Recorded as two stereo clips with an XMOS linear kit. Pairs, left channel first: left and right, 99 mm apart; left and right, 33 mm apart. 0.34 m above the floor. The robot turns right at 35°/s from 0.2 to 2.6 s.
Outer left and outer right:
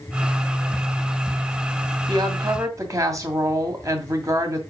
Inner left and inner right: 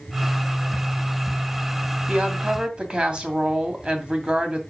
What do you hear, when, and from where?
2.1 s a woman speaking: 45° right (ahead or behind), 2 m; by 4.6 s 30° right (ahead or behind), 2 m